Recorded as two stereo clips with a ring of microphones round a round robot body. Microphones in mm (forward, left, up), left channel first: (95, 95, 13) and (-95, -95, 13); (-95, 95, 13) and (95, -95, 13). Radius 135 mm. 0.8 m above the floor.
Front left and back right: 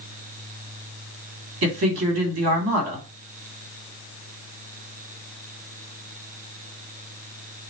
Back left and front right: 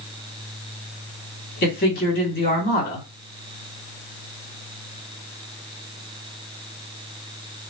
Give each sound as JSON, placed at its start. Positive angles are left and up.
{"t": 1.6, "sound": "a man speaking", "azimuth_deg": -175, "distance_m": 1.6}